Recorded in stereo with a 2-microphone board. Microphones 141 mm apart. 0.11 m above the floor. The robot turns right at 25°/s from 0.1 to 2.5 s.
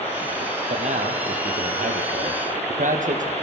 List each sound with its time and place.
0.7 s a man speaking: 120° right, 3 m; by 3.3 s 75° right, 3 m